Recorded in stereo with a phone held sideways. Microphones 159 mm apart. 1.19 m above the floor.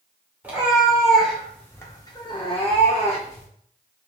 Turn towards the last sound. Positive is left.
turn(degrees=45)  # may be behind; listen again after turning